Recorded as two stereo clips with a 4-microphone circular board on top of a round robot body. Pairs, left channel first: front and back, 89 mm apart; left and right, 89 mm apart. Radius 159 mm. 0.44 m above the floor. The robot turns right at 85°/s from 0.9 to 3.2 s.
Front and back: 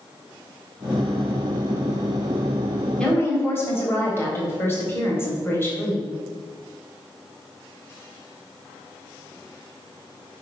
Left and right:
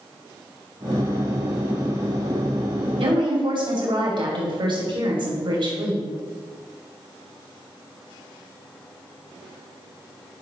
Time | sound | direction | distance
3.0 | a woman speaking | 80° right | 3.5 m